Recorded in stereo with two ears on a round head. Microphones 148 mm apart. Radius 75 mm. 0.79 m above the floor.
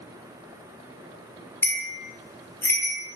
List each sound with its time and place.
1.6 s a bell: 15° left (ahead or behind), 0.8 m